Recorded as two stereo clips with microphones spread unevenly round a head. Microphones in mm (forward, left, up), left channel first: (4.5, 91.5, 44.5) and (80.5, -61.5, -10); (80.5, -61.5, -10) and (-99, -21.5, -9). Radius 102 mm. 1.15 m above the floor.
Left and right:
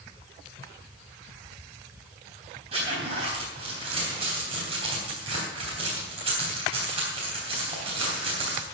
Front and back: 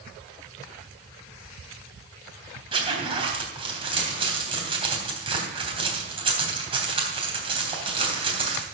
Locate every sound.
2.7 s a zipper: 130° right, 3.5 m